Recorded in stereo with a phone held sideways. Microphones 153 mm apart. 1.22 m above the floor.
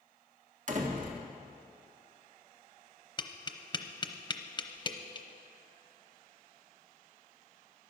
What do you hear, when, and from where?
0.7 s a door slam: 50° right (ahead or behind), 1.7 m
3.2 s tapping: 30° left (ahead or behind), 0.8 m